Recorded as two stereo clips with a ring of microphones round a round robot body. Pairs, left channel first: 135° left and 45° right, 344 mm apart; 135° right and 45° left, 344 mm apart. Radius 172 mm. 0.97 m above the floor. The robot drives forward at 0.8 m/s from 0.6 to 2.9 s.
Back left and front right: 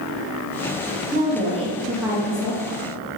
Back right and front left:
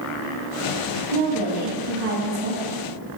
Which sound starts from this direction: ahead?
A woman speaking, at 1.1 s.